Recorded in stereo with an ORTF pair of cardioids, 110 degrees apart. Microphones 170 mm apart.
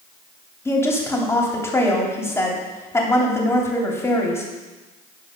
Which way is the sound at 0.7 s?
15° left.